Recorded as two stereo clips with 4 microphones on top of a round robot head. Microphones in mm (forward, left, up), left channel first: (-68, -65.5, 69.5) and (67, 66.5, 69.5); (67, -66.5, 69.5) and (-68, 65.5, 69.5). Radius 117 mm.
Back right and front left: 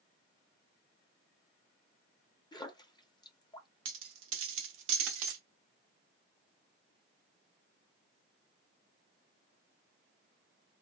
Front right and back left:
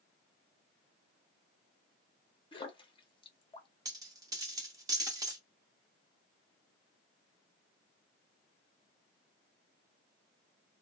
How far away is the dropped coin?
About 0.8 m.